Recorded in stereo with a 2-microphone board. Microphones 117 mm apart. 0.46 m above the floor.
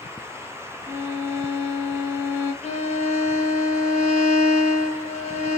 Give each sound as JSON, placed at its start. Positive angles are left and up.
{"t": 0.9, "sound": "a violin", "side_deg": -20, "distance_m": 0.8}
{"t": 2.6, "sound": "a violin", "side_deg": 70, "distance_m": 0.7}